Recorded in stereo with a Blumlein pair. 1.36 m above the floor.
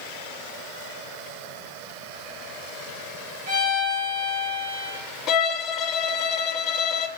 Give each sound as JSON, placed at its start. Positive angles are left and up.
{"t": 3.5, "sound": "a violin", "azimuth_deg": -55, "distance_m": 4.0}
{"t": 5.3, "sound": "a violin", "azimuth_deg": 30, "distance_m": 0.7}